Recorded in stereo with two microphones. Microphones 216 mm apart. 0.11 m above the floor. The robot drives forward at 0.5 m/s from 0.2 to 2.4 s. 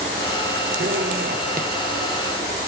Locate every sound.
0.8 s a zipper: 60° right (ahead or behind), 0.5 m; by 1.7 s 40° right (ahead or behind), 0.7 m